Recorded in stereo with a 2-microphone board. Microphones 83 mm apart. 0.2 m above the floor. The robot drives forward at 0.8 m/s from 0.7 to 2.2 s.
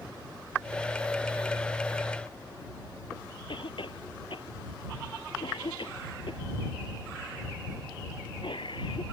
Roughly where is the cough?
Left.